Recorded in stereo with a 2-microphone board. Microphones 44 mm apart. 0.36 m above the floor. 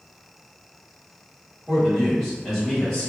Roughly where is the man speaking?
Centre.